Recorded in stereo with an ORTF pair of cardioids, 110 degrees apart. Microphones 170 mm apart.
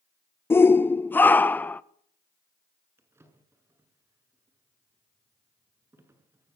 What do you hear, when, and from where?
0.5 s a shout: 15° left, 0.6 m; by 1.8 s 10° left, 1.4 m
3.0 s a drawer: 15° right, 7 m